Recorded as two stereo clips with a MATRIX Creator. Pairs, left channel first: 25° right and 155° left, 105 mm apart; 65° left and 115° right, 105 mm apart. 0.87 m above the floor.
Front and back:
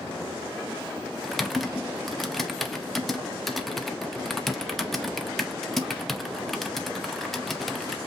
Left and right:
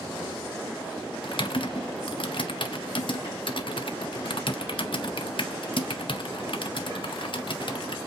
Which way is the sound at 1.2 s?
65° left.